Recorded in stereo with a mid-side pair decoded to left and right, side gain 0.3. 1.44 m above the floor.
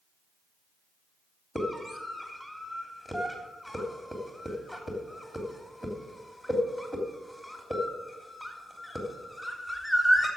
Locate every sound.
1.6 s a scream: 20° left, 3 m